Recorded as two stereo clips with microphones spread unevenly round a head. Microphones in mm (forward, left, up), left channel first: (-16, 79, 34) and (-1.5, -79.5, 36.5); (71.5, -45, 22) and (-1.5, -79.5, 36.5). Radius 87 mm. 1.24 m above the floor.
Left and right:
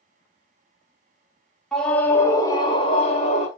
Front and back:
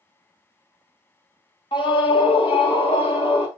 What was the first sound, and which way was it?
A scream, 5° left.